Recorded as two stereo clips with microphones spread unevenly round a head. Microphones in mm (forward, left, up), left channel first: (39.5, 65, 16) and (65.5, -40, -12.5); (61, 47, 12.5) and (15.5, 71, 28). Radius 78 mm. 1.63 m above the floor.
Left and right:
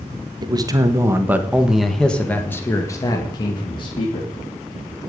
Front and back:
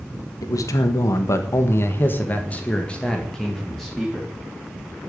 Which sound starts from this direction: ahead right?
A man speaking, at 0.4 s.